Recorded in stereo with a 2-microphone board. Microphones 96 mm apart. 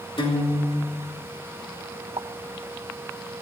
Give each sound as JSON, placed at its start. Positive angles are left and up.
{"t": 0.2, "sound": "a guitar", "side_deg": 65, "distance_m": 3.5}
{"t": 2.2, "sound": "a pop", "side_deg": -80, "distance_m": 0.7}